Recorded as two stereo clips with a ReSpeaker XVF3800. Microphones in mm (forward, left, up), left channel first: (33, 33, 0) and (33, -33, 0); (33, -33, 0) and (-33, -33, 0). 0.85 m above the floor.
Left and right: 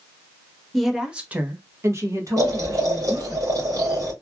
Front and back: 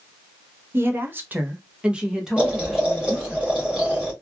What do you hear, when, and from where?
0.7 s a woman speaking: 175° left, 0.7 m; by 3.4 s 90° right, 1.6 m
2.4 s boiling: 105° right, 1.4 m